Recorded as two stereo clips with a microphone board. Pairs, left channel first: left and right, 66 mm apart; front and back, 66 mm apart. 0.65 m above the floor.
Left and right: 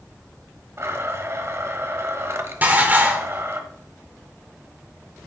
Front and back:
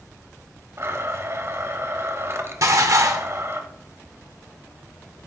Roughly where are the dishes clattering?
Behind right.